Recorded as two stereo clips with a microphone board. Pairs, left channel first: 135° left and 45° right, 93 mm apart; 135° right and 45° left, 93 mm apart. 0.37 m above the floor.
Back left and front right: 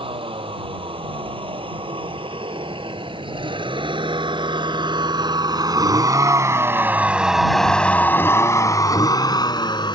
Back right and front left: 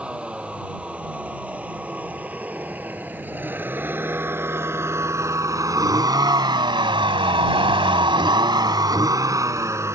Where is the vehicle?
35° right; by 10.0 s 105° left.